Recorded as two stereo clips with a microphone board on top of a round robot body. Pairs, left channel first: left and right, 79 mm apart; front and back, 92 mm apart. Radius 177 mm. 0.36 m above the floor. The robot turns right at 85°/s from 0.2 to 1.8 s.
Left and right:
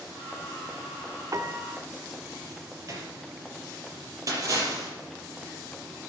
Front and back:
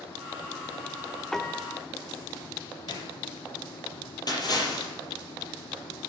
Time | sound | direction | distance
1.3 | a piano | 85° right | 1.4 m
2.9 | a gunshot | 45° right | 4 m
4.3 | a splash | 45° right | 6 m